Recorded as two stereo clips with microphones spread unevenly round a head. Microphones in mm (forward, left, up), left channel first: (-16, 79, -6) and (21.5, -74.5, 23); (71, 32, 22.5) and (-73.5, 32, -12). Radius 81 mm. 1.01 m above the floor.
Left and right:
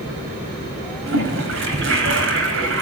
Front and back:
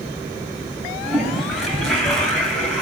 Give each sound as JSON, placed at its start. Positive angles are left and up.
{"t": 1.1, "sound": "a toilet flushing", "azimuth_deg": -85, "distance_m": 4.5}